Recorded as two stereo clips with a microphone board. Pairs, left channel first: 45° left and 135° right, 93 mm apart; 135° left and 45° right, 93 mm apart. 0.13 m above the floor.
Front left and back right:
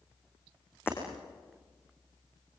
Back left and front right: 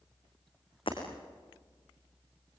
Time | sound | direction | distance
0.9 | breaking glass | 110° left | 5.5 m